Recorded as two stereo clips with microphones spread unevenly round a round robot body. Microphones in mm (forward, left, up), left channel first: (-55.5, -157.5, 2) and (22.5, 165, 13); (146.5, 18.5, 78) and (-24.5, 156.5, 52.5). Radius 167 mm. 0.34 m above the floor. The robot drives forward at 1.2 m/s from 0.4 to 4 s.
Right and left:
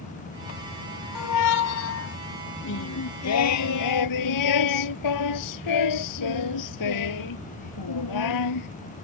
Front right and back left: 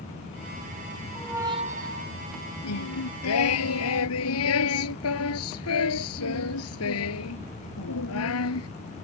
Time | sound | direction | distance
1.1 | a squeak | 115° right | ?
2.6 | singing | 50° right | ?